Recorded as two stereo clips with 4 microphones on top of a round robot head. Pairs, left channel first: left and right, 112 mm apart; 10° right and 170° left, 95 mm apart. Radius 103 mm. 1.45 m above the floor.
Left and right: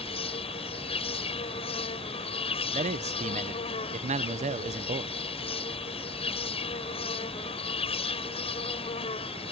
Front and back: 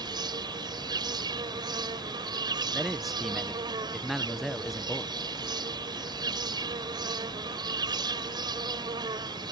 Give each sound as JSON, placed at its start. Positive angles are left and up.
{"t": 0.0, "sound": "an insect", "azimuth_deg": 125}
{"t": 2.7, "sound": "a man speaking", "azimuth_deg": -100}